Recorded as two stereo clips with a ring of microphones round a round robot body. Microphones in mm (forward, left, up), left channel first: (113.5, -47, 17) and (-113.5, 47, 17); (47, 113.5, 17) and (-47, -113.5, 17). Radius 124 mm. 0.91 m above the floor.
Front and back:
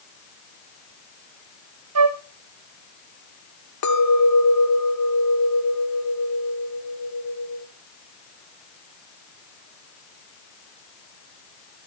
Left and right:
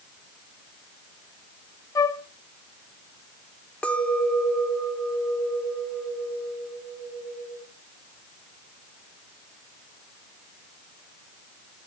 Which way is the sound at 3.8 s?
20° right.